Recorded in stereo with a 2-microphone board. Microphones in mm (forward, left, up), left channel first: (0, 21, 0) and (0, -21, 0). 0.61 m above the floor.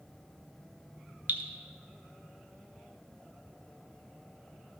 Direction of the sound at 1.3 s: 50° right (ahead or behind).